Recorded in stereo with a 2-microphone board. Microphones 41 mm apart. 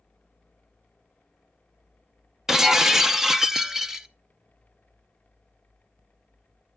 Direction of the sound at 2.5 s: 10° right (ahead or behind).